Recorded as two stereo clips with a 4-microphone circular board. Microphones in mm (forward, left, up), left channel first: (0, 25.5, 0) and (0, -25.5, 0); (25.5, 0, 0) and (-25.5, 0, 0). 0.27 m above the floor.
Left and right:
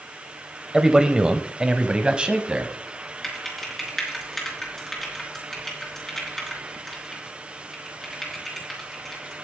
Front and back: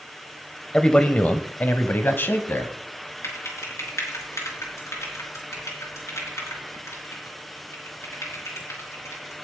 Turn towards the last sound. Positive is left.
turn(degrees=10)